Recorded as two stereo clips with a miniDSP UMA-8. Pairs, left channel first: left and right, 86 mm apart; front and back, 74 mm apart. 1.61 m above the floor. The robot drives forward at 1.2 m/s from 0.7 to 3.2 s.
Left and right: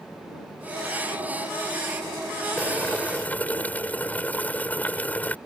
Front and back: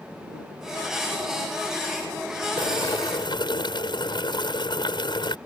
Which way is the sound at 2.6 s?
15° left.